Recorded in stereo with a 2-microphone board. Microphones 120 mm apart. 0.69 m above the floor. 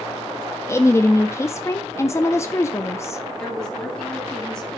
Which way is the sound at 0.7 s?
25° left (ahead or behind).